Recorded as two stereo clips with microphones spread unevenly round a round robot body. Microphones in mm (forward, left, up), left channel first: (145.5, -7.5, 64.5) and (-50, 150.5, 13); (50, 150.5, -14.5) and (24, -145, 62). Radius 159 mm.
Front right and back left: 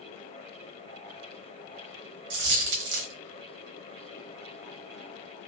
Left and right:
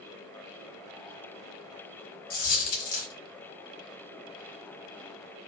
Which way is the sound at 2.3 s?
150° left.